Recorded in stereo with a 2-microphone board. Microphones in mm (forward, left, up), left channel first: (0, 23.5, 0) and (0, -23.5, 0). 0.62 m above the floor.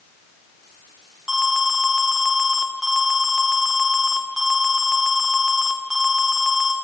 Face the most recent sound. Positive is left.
turn(degrees=-20)  # may be behind; listen again after turning